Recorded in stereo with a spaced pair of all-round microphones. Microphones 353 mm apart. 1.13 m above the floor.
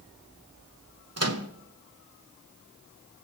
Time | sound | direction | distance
1.2 | a microwave | 45° right (ahead or behind) | 0.9 m